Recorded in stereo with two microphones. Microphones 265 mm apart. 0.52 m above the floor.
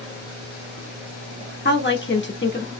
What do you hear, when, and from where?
1.6 s a woman speaking: 45° left (ahead or behind), 1.1 m